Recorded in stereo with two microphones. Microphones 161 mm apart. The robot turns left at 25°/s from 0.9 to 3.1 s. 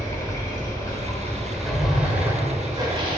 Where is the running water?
20° left, 1.4 m; by 3.2 s 35° right, 1.4 m.